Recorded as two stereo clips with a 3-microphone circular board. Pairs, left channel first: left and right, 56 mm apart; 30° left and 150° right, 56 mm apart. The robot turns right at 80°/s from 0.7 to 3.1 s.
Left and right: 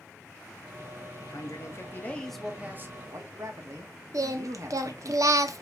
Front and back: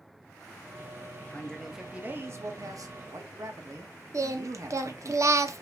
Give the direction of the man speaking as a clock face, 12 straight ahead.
9 o'clock.